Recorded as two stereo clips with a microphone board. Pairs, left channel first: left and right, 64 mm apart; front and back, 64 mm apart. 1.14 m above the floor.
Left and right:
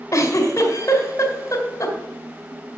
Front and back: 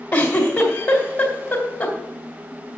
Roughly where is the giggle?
Ahead left.